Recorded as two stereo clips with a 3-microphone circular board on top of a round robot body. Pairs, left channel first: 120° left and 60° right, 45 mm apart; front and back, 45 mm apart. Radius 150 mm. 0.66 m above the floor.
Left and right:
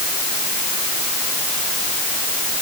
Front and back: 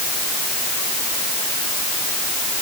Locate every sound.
Only background noise.